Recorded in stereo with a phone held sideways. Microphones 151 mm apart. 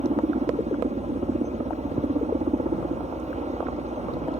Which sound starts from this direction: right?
A helicopter, at 0.0 s.